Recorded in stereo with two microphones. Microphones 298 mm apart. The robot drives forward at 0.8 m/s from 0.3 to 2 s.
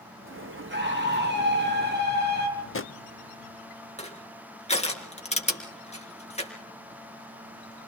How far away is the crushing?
About 4 m.